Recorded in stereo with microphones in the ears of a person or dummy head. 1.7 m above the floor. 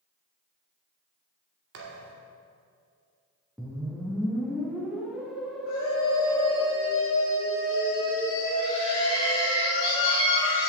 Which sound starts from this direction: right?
A thud, at 1.7 s.